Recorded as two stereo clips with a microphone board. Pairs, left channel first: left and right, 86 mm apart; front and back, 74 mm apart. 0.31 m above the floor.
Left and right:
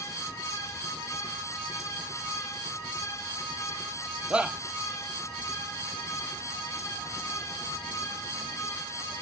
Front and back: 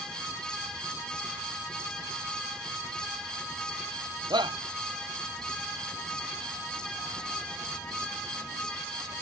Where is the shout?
170° right.